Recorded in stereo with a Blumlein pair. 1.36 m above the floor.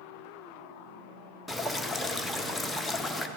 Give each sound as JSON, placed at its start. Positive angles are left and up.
{"t": 1.5, "sound": "dripping", "azimuth_deg": 5, "distance_m": 0.6}